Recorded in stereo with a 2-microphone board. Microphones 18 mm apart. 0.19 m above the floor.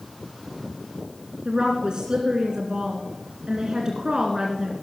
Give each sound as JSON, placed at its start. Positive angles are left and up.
{"t": 1.4, "sound": "a woman speaking", "side_deg": -50, "distance_m": 1.8}